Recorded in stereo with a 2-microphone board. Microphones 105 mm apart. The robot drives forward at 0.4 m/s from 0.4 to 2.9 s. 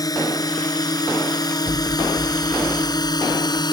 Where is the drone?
35° left (ahead or behind); by 3.7 s 40° left (ahead or behind).